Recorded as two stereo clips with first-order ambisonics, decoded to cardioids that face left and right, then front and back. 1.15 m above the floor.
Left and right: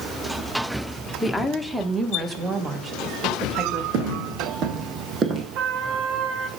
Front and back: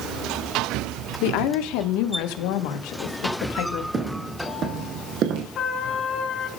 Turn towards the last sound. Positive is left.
turn(degrees=-60)